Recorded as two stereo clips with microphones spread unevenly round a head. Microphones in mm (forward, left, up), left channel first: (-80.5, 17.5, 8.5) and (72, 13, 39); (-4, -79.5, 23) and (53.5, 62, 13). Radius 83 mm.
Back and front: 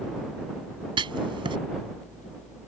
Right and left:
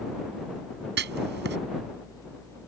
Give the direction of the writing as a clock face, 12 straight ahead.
10 o'clock.